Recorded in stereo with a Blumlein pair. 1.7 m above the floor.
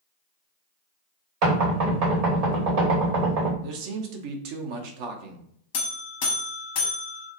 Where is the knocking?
45° right, 1.2 m.